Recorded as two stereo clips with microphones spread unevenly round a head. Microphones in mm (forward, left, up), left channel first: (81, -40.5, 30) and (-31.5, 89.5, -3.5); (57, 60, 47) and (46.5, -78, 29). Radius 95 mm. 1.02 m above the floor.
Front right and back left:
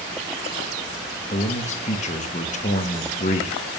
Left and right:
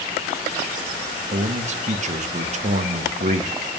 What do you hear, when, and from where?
1.3 s a man speaking: 105° right, 0.9 m